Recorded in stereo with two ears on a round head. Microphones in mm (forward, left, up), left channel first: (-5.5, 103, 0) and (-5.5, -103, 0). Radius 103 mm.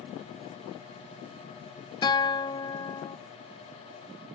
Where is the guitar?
20° left (ahead or behind), 0.6 m.